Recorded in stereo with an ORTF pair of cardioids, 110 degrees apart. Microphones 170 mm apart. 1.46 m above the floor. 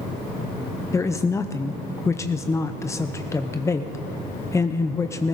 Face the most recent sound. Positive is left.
turn(degrees=15)